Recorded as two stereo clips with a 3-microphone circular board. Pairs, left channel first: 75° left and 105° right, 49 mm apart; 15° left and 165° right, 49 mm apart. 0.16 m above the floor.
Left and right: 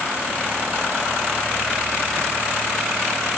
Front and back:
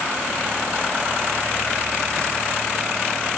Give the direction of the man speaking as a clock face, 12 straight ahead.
No man speaking in this recording.